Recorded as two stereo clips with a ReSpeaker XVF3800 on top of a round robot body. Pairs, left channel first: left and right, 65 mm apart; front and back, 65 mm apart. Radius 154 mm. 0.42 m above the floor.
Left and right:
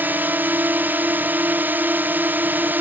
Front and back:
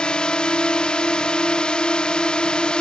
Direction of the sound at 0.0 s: 65° right.